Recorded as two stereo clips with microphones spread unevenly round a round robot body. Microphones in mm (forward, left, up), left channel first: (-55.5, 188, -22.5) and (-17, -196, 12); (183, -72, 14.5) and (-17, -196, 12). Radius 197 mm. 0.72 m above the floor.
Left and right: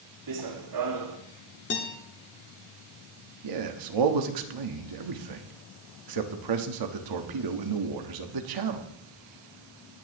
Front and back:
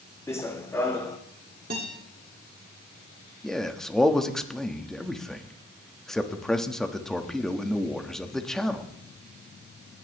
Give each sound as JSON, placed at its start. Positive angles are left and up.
{"t": 0.3, "sound": "running footsteps", "azimuth_deg": -45, "distance_m": 1.9}
{"t": 1.7, "sound": "a guitar", "azimuth_deg": 150, "distance_m": 2.0}
{"t": 3.4, "sound": "a man speaking", "azimuth_deg": -55, "distance_m": 1.5}